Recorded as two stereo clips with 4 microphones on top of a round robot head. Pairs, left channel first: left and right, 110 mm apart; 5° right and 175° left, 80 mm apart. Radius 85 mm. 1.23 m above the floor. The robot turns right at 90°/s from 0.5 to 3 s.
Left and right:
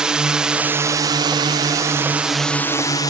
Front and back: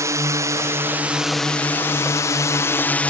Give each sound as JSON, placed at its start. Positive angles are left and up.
{"t": 0.0, "sound": "a drone", "azimuth_deg": -170}